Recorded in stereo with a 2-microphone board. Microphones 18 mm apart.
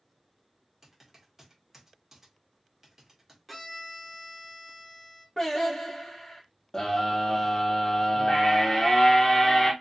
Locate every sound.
0.8 s typing on a keyboard: 20° right (ahead or behind), 1.0 m
3.5 s a violin: centre (ahead or behind), 0.6 m
5.4 s singing: 20° left (ahead or behind), 1.1 m
6.7 s a scream: 25° left (ahead or behind), 0.9 m